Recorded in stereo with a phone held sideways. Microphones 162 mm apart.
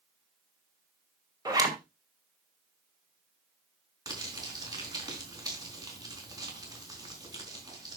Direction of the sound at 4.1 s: 25° right (ahead or behind).